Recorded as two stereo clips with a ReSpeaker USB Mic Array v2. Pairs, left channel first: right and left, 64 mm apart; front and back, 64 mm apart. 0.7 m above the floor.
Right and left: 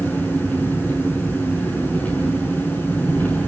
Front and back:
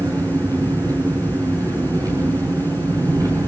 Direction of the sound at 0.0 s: 155° right.